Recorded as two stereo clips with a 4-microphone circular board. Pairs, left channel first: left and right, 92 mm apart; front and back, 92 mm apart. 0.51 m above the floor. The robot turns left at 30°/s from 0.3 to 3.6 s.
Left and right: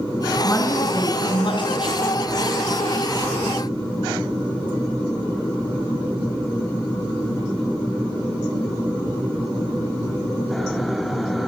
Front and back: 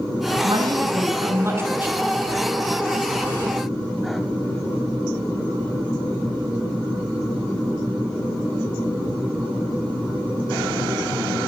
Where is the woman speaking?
150° left, 6.5 m; by 2.0 s 105° left, 6.5 m.